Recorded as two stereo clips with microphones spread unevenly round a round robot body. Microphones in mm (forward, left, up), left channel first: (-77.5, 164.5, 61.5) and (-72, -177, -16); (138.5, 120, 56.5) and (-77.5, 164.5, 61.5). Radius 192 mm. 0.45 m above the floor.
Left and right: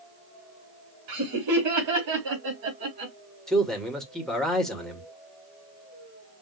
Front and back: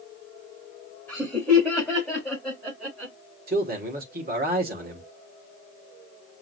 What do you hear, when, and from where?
1.1 s laughter: 95° right, 2 m; by 3.1 s 105° right, 3 m
3.5 s a man speaking: 165° right, 1.8 m